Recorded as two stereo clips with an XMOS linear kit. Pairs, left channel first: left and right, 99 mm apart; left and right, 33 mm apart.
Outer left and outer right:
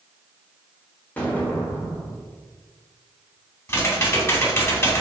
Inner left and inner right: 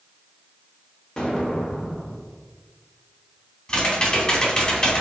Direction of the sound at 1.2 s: 15° left (ahead or behind).